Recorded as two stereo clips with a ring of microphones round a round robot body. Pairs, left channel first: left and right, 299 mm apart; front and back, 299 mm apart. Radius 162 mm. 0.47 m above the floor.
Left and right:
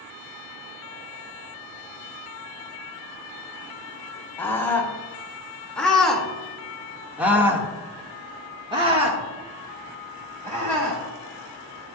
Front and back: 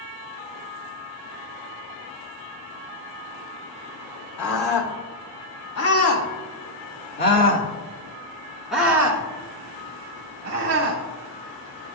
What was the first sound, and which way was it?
A scream, 10° left.